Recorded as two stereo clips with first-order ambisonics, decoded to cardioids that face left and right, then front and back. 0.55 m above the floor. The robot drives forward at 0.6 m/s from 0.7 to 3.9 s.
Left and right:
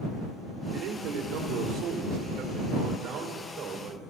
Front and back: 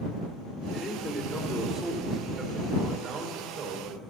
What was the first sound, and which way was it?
A man speaking, 75° right.